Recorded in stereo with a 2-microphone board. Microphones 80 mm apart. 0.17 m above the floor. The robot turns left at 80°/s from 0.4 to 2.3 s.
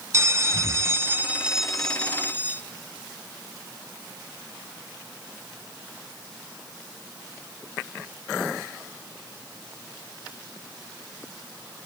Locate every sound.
0.1 s a bell: 75° right, 0.5 m; by 2.6 s 135° left, 0.5 m